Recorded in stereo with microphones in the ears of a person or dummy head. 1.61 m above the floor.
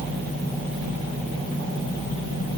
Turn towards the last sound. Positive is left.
No sound to turn to.